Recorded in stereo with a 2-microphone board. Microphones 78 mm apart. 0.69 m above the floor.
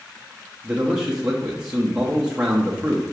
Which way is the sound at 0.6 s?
10° right (ahead or behind).